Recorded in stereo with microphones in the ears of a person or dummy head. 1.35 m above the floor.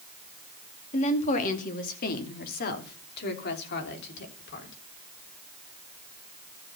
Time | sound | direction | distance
0.9 | a woman speaking | 40° left (ahead or behind) | 2 m